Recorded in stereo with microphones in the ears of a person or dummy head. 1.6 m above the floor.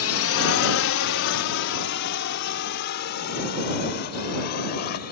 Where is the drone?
65° left (ahead or behind); by 5.1 s 50° left (ahead or behind).